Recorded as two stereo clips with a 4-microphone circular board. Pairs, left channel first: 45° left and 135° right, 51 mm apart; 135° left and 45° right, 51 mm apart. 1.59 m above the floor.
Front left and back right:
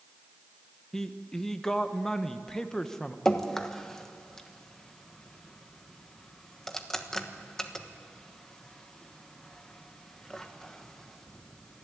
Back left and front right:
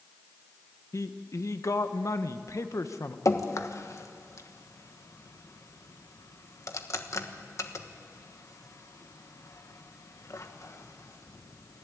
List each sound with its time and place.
0.9 s a man speaking: 125° left, 1.2 m
3.2 s dripping: 125° left, 1.2 m